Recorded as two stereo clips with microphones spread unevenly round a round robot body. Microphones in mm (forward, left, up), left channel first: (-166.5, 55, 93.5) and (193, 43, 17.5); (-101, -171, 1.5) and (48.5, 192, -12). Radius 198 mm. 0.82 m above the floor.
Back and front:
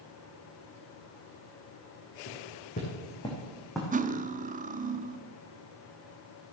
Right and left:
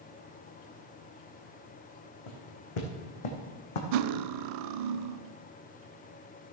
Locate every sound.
2.3 s footsteps: 120° right, 3.5 m; by 3.8 s 95° right, 2.5 m
3.9 s cutlery clinking: 70° left, 0.7 m